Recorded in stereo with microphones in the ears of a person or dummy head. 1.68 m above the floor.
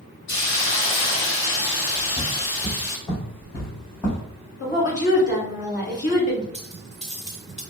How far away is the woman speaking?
About 2 m.